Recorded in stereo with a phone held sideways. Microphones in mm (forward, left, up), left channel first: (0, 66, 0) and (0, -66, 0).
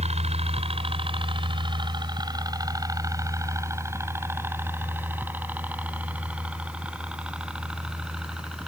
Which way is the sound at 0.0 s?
55° right (ahead or behind).